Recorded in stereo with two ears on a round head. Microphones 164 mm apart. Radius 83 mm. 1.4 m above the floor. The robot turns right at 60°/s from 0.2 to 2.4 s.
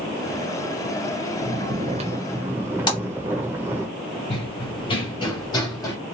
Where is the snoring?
70° right, 0.8 m; by 3.9 s 15° right, 0.8 m.